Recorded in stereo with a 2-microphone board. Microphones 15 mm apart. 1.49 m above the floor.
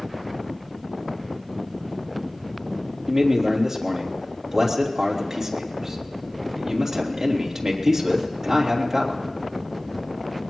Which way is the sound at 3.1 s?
30° right (ahead or behind).